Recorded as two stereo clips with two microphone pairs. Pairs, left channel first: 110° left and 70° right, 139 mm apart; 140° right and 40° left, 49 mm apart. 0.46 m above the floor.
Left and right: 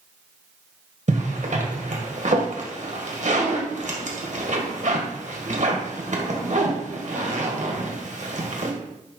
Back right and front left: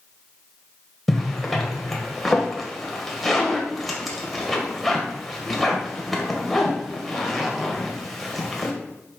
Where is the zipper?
55° right, 1.6 m.